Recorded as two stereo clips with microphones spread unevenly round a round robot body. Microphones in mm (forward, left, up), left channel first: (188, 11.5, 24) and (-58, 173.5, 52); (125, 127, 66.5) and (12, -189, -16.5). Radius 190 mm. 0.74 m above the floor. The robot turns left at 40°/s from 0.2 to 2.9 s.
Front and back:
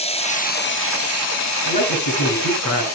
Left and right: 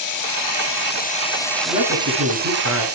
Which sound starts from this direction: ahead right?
A man speaking, at 1.6 s.